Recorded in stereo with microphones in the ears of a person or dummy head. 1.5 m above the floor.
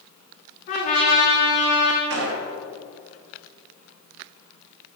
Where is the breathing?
I don't hear breathing.